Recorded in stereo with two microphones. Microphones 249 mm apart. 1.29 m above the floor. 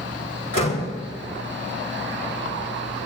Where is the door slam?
85° left, 4 m.